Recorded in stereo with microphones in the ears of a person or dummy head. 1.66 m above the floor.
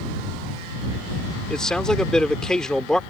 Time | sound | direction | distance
1.5 | a man speaking | centre (ahead or behind) | ?